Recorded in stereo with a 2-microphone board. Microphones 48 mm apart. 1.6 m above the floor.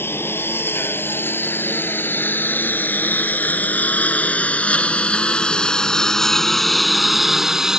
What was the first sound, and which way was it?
A lawn mower, 55° left (ahead or behind).